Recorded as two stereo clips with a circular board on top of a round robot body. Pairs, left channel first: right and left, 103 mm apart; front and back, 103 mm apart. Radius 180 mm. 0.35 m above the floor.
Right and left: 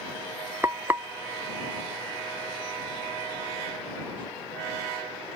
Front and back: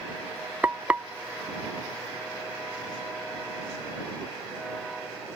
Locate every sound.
0.6 s frying: 125° left